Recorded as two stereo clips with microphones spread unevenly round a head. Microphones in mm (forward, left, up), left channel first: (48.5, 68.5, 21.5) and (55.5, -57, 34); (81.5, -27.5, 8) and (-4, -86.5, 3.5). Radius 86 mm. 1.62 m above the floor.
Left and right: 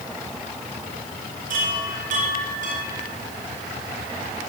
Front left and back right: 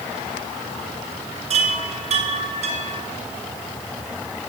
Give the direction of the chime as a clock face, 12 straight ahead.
4 o'clock.